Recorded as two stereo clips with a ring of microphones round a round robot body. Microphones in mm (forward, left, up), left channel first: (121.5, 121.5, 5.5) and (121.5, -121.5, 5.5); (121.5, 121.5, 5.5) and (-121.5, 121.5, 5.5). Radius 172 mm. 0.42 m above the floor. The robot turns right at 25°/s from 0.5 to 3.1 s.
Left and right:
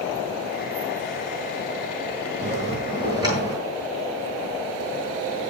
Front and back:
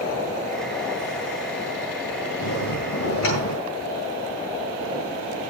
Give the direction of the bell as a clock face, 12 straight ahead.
1 o'clock.